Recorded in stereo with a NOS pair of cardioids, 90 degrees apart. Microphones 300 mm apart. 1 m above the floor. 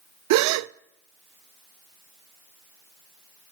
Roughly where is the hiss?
I don't hear a hiss.